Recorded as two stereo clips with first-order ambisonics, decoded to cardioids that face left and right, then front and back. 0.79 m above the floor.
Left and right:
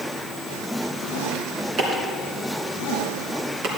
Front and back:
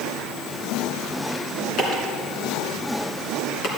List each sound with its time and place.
1.8 s chopping: 45° right, 2.5 m